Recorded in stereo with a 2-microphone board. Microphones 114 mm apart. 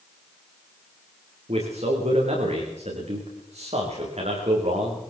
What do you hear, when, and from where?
1.5 s a man speaking: 70° right (ahead or behind), 7.5 m